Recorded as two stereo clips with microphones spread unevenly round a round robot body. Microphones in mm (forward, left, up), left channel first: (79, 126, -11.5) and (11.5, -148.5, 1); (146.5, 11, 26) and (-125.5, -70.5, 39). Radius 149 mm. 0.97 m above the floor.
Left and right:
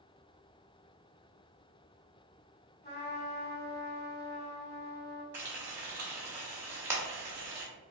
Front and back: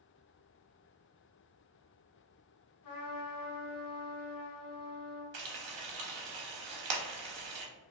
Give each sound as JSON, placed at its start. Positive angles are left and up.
{"t": 2.8, "sound": "a trumpet", "azimuth_deg": 25, "distance_m": 1.7}
{"t": 5.3, "sound": "frying", "azimuth_deg": 175, "distance_m": 0.8}